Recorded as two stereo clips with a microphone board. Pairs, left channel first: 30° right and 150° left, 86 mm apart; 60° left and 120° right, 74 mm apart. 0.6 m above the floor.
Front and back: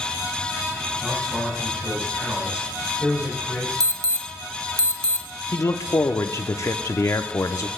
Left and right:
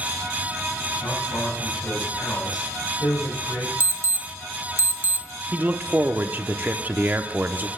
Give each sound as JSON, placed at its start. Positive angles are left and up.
{"t": 1.0, "sound": "a man speaking", "azimuth_deg": 75, "distance_m": 5.0}
{"t": 3.8, "sound": "an alarm", "azimuth_deg": -170, "distance_m": 0.9}
{"t": 5.5, "sound": "a man speaking", "azimuth_deg": -65, "distance_m": 0.8}